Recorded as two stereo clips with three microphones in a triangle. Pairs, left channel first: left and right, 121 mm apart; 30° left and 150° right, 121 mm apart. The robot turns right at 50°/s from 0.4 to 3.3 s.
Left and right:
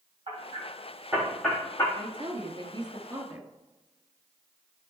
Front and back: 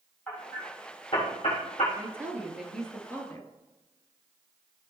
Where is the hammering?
50° right, 4 m; by 1.9 s 25° left, 4 m.